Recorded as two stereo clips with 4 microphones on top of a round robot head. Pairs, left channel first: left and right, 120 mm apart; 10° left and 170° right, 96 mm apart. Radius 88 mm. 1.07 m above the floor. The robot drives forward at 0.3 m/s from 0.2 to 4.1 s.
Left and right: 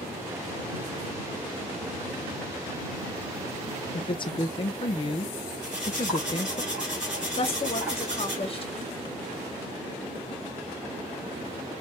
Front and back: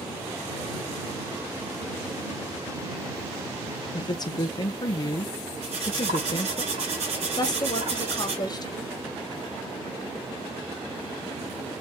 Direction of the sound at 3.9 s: 45° left.